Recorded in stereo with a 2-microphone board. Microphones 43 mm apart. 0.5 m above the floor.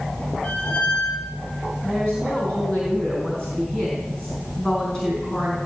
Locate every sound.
0.4 s a squeak: 30° left (ahead or behind), 4.5 m
1.8 s a woman speaking: 15° left (ahead or behind), 4 m